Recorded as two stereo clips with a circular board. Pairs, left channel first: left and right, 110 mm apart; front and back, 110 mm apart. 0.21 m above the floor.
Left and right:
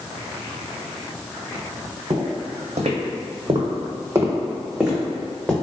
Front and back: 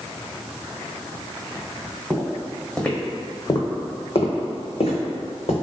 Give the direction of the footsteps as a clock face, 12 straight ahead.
3 o'clock.